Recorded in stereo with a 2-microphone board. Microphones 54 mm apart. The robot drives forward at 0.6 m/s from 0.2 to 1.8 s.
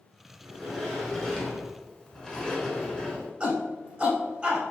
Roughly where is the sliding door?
Centre.